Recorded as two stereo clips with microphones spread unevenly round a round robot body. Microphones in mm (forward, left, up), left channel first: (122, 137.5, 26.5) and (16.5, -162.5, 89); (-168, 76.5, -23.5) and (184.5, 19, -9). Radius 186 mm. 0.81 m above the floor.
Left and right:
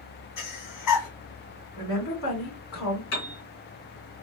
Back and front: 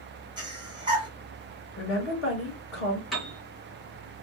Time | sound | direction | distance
0.4 | breathing | 70° left | 1.7 m
1.8 | a woman speaking | 115° left | 3 m
3.1 | a piano | 80° left | 2.5 m